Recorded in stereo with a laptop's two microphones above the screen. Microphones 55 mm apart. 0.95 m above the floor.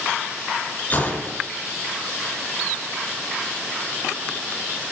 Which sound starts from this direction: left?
A gunshot, at 0.9 s.